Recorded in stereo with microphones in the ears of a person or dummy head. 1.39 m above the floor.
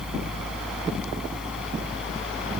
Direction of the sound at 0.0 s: 5° right (ahead or behind).